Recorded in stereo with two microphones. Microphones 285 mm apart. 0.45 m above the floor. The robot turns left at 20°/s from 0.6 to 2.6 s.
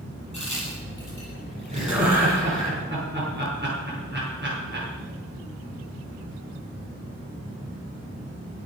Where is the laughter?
20° right (ahead or behind), 6.5 m; by 4.9 s 35° right (ahead or behind), 6.5 m.